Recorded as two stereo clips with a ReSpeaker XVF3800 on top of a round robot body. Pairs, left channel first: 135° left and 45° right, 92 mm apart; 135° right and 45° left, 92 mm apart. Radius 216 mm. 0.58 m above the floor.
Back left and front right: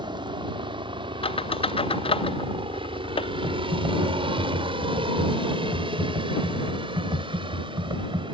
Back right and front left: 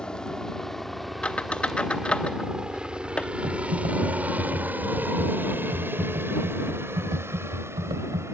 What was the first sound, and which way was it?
A helicopter, 55° right.